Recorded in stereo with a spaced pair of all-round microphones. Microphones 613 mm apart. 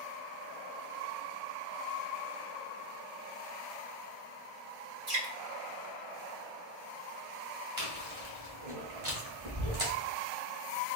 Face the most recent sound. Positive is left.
turn(degrees=-65)  # may be behind; listen again after turning